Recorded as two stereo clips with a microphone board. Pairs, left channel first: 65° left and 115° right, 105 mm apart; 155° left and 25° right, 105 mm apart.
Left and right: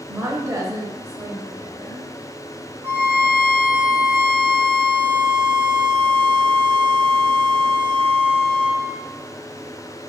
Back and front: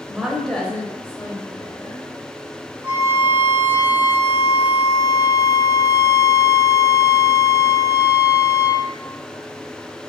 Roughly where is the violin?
Right.